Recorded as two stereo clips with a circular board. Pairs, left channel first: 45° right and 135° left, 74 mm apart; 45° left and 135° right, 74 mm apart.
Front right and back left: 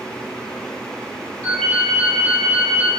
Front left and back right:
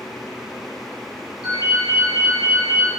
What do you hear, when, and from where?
1.4 s a ringtone: 30° left, 1.8 m